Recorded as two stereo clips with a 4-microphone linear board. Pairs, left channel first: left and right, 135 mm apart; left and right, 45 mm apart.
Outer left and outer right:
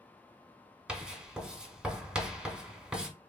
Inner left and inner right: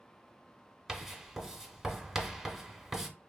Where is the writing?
5° right (ahead or behind), 0.5 m.